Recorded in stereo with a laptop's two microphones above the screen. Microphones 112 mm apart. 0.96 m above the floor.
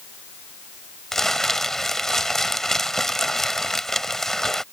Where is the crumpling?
5° left (ahead or behind).